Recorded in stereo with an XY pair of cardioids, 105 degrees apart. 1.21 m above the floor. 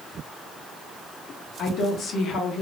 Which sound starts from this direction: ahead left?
A woman speaking, at 1.6 s.